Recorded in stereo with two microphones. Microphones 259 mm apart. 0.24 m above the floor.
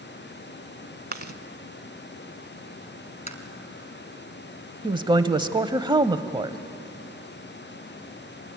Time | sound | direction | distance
1.1 | chewing | 40° right (ahead or behind) | 0.9 m
3.3 | tapping | 30° left (ahead or behind) | 1.7 m
4.8 | a woman speaking | 15° right (ahead or behind) | 0.9 m